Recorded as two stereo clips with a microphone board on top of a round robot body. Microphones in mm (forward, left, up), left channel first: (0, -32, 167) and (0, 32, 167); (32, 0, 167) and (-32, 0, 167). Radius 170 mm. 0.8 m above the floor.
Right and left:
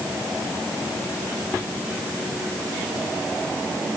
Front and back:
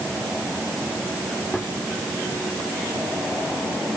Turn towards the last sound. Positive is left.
No sound to turn to.